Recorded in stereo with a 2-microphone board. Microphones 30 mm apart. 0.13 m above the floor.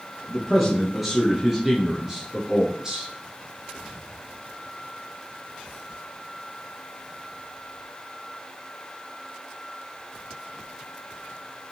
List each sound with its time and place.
0.3 s a man speaking: 5° left (ahead or behind), 2.5 m; by 3.1 s 25° right (ahead or behind), 2 m